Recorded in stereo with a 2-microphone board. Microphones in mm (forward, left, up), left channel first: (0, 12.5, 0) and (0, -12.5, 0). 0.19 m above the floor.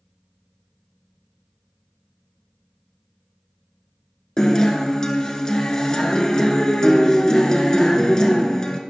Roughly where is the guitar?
Left.